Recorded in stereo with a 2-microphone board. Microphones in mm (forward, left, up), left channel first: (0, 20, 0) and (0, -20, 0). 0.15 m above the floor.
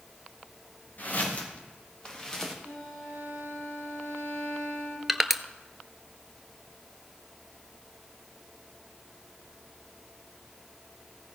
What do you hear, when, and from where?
1.0 s footsteps: 45° left (ahead or behind), 3 m; by 2.5 s 5° left (ahead or behind), 2.5 m
2.6 s a violin: 65° left (ahead or behind), 4 m
5.1 s crushing: 5° right (ahead or behind), 0.5 m